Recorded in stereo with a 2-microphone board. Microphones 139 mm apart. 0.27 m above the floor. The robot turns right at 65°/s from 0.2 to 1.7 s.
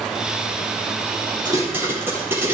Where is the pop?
35° right (ahead or behind), 8.5 m; by 2.5 s 15° right (ahead or behind), 8.5 m.